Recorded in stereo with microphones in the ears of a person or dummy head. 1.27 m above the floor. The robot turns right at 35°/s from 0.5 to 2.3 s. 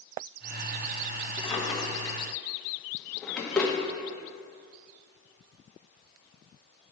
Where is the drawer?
30° left (ahead or behind), 1.0 m; by 3.7 s centre (ahead or behind), 1.0 m.